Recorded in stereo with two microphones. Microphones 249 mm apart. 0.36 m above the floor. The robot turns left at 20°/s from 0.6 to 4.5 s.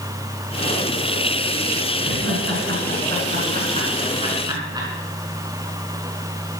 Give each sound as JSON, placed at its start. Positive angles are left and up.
{"t": 2.0, "sound": "laughter", "side_deg": -60, "distance_m": 4.0}